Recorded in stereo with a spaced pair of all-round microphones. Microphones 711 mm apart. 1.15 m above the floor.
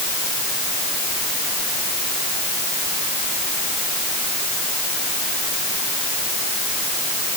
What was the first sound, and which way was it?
Only background noise.